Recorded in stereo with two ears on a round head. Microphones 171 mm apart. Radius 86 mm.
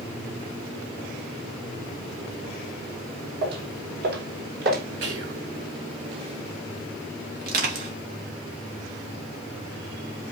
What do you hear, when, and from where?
3.4 s footsteps: 60° right (ahead or behind), 3 m; by 4.8 s 50° right (ahead or behind), 3 m
5.0 s whispering: 65° right (ahead or behind), 3.5 m
7.4 s crushing: 50° right (ahead or behind), 2.5 m